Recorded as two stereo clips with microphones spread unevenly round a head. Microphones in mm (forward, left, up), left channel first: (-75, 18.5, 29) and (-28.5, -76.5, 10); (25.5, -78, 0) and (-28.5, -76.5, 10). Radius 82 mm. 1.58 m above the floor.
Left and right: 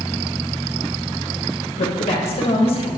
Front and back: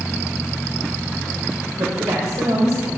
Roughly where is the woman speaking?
Behind left.